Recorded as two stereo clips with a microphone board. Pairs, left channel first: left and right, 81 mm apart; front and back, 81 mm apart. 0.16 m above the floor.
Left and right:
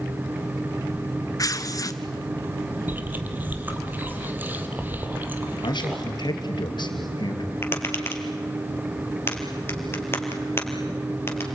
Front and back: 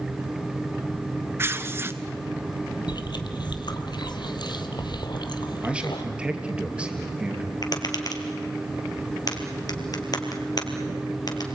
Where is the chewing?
25° right, 1.7 m.